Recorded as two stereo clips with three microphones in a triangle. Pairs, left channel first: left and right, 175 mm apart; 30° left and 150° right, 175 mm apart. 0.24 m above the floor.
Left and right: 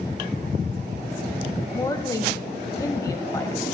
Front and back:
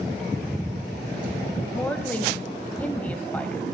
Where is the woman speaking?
90° left, 0.9 m.